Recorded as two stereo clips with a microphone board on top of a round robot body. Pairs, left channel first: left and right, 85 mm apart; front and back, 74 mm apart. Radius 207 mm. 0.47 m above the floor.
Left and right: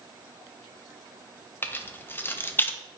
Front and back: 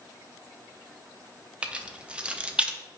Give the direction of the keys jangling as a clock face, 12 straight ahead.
8 o'clock.